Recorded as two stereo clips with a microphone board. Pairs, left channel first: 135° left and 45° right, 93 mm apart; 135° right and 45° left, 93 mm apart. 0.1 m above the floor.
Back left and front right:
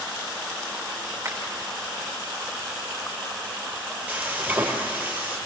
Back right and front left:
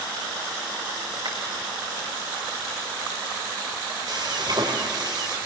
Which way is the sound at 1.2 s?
15° left.